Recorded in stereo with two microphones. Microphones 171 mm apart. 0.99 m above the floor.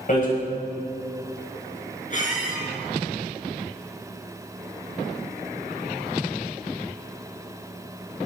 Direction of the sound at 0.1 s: 55° left (ahead or behind).